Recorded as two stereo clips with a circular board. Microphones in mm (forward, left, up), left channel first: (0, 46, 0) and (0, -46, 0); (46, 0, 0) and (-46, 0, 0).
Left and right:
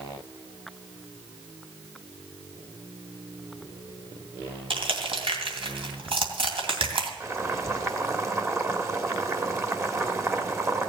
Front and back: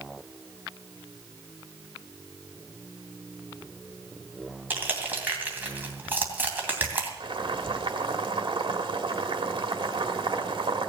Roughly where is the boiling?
Behind right.